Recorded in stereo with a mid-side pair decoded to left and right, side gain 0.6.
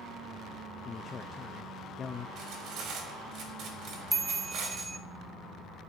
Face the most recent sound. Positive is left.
turn(degrees=-5)